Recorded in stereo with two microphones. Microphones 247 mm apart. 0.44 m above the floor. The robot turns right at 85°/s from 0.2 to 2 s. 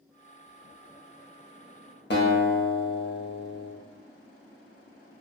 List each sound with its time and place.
2.1 s a guitar: 50° left (ahead or behind), 0.6 m